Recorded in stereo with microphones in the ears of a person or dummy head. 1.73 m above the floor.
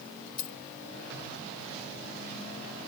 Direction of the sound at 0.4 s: 55° left (ahead or behind).